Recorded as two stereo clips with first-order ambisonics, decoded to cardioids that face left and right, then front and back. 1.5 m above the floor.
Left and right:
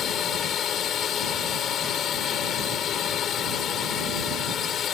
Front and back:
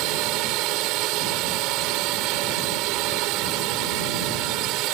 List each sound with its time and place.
0.0 s a drone: 150° left